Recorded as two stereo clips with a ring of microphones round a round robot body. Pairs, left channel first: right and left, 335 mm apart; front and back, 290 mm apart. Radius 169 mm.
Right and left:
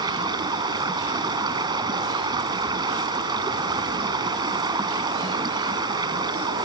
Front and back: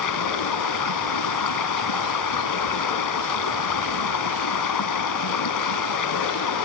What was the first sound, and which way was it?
Running water, 10° left.